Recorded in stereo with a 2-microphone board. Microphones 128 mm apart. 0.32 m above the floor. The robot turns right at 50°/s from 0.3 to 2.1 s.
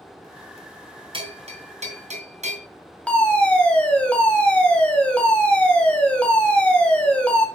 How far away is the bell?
About 2.5 m.